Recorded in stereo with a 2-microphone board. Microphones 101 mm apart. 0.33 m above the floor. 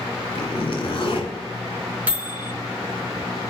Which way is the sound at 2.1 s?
15° right (ahead or behind).